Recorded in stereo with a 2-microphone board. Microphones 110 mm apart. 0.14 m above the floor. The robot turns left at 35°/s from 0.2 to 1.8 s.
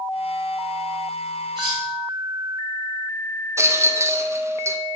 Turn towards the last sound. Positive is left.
turn(degrees=-25)  # may be behind; listen again after turning